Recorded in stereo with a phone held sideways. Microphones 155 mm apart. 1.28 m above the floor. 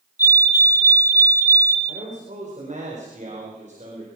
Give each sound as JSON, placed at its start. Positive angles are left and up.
{"t": 0.2, "sound": "a fire alarm", "side_deg": 20, "distance_m": 4.5}
{"t": 1.9, "sound": "a man speaking", "side_deg": -50, "distance_m": 4.5}